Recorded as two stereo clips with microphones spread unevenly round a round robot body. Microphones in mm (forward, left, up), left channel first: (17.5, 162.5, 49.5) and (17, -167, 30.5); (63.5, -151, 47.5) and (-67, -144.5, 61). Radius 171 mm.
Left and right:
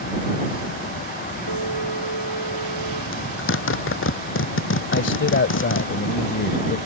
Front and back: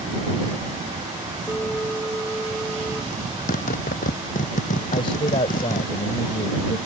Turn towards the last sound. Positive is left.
turn(degrees=40)